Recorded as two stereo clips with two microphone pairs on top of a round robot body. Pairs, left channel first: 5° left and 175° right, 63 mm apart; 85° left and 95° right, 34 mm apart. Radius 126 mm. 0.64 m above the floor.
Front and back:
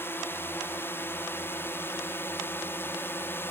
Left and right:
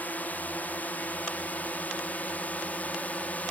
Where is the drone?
60° left; by 3.5 s 55° left.